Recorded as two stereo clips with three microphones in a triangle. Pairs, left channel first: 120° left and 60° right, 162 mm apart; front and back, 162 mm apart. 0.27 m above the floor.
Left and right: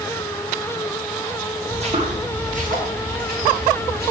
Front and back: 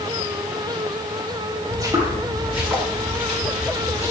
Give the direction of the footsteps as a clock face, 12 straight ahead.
4 o'clock.